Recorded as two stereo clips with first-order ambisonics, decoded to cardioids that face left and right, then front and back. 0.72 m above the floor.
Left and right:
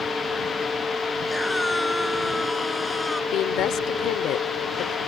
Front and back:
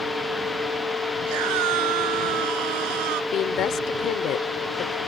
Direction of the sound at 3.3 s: 50° left.